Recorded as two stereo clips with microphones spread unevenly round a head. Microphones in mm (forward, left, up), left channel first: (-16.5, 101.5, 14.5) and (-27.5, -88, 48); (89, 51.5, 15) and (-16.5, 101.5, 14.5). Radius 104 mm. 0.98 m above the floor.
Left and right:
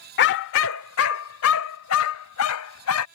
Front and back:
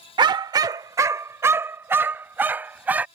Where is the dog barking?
115° left; by 3.0 s 80° left.